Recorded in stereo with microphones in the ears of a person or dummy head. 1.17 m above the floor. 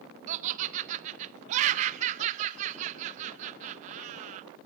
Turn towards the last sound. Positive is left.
turn(degrees=-35)  # may be behind; listen again after turning